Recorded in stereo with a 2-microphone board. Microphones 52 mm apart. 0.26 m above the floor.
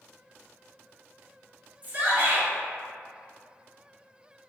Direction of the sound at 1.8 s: 30° right (ahead or behind).